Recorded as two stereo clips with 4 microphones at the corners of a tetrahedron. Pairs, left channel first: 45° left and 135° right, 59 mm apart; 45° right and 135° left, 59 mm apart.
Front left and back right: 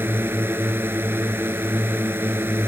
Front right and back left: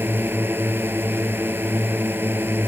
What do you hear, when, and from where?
0.0 s a drone: straight behind